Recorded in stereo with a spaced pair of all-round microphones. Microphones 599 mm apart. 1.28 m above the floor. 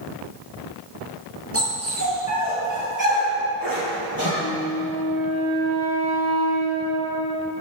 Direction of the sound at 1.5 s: 20° right (ahead or behind).